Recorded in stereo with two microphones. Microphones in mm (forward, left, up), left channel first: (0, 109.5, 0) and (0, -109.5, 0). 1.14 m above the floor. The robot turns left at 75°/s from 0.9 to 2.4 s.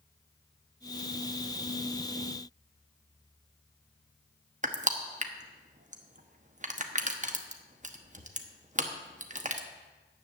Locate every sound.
4.6 s crushing: 35° right (ahead or behind), 1.0 m